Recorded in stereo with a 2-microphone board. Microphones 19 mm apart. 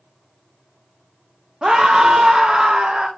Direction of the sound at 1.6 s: 50° right (ahead or behind).